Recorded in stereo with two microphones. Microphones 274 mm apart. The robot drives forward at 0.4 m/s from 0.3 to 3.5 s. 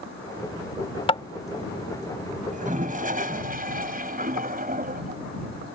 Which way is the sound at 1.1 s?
20° left (ahead or behind).